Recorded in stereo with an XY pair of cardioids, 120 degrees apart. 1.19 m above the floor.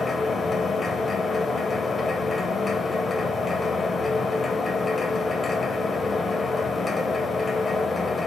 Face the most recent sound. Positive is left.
turn(degrees=25)